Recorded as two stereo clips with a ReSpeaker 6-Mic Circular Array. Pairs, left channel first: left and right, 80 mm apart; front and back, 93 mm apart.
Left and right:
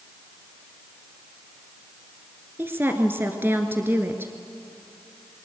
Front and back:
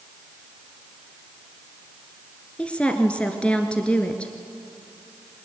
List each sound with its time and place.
2.6 s a woman speaking: 65° right, 1.5 m